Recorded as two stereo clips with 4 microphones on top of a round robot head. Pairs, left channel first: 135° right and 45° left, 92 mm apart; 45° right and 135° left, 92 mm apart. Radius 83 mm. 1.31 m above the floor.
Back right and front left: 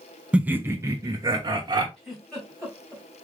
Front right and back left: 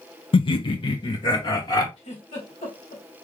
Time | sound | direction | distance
0.3 | laughter | 35° right | 0.6 m
2.0 | a giggle | 50° right | 3 m